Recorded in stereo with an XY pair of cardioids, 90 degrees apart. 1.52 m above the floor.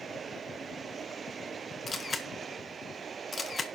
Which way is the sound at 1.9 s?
35° left.